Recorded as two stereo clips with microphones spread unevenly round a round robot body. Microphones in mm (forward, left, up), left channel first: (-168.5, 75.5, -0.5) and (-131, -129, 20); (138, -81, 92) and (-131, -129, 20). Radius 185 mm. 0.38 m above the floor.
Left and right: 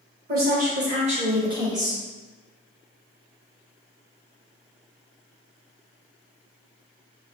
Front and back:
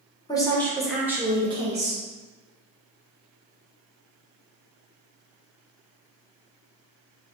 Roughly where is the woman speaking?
Right.